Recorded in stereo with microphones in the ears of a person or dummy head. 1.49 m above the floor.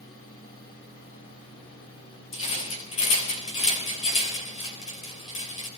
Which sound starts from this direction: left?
A rattle, at 2.3 s.